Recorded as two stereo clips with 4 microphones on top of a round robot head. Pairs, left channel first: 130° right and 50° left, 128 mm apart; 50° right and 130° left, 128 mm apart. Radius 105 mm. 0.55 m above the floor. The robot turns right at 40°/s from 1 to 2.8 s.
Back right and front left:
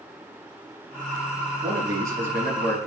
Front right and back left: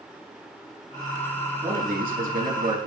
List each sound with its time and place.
1.6 s a man speaking: 100° left, 4.5 m; by 2.9 s 150° left, 4.5 m